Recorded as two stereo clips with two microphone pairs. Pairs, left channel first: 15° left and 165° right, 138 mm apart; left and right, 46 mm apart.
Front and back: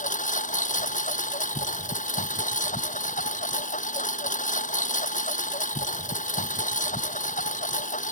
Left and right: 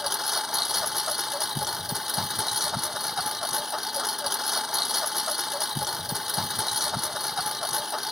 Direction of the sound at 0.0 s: 5° right.